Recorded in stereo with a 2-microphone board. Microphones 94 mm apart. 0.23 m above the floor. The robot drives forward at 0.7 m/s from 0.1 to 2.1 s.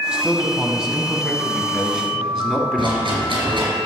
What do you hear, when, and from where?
0.1 s a man speaking: 10° right (ahead or behind), 1.2 m; by 3.7 s 5° right (ahead or behind), 2 m
2.8 s a rattle: 70° right (ahead or behind), 3.5 m